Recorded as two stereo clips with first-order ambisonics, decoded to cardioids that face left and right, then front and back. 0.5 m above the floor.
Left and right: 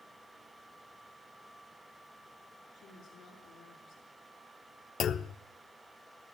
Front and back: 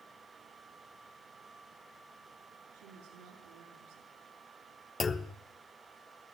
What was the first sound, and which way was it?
A woman speaking, 150° left.